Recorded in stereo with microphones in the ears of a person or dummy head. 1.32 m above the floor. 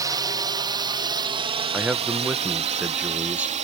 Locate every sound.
0.0 s a drone: 20° right (ahead or behind); by 3.6 s 40° right (ahead or behind)
1.7 s a man speaking: 10° right (ahead or behind)